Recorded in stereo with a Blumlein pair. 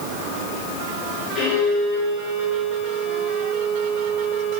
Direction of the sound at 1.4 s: 20° left.